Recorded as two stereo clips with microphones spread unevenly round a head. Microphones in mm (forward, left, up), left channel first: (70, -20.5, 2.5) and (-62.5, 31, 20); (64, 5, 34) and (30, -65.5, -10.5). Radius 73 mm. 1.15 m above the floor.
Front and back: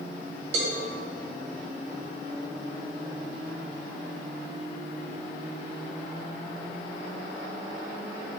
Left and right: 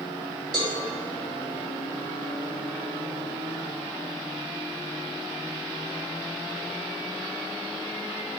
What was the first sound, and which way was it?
A cowbell, 150° right.